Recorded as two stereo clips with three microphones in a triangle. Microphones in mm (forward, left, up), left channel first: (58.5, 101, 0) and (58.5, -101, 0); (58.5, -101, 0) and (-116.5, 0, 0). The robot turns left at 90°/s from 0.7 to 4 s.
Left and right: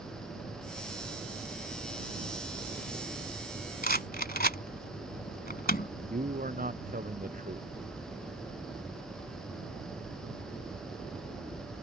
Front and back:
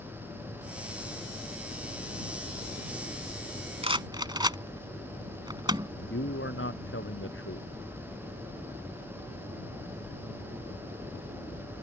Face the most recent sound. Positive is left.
turn(degrees=-45)